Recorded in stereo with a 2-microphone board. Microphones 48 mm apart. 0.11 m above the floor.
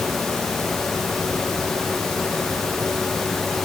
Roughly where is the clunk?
No clunk in this recording.